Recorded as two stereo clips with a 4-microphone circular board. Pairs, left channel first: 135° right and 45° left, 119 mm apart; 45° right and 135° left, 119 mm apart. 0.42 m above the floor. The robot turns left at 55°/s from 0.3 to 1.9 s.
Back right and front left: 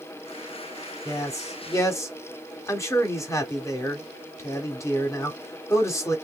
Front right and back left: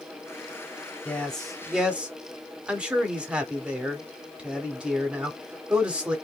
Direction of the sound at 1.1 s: 110° right.